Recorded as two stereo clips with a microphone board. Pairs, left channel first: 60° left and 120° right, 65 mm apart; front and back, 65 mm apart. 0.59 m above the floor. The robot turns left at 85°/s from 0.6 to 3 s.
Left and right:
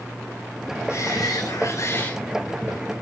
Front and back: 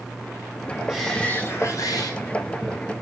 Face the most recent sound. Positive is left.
turn(degrees=-75)